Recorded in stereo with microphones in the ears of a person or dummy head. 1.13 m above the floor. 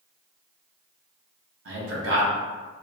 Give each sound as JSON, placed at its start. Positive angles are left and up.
{"t": 1.6, "sound": "a man speaking", "side_deg": -75, "distance_m": 1.1}